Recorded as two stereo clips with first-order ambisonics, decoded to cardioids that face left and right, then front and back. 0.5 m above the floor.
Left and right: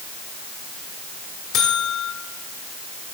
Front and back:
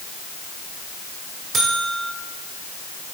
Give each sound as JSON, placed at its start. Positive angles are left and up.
{"t": 1.5, "sound": "a buzzer", "azimuth_deg": 120, "distance_m": 1.4}